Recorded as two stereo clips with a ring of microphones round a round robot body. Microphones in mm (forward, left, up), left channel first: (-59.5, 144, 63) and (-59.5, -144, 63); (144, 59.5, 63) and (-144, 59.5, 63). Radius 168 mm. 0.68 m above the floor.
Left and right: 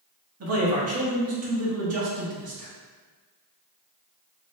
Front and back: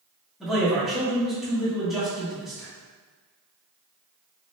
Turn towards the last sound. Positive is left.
turn(degrees=-90)